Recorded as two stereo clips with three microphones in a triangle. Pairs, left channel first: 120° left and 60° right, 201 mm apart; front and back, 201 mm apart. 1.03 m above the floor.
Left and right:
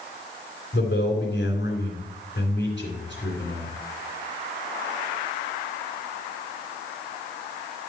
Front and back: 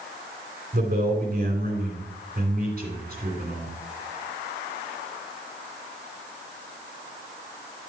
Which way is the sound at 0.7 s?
145° left.